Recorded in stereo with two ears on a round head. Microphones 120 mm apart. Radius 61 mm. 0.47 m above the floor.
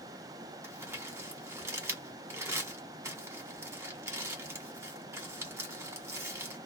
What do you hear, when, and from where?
0.6 s crumpling: 20° right (ahead or behind), 1.3 m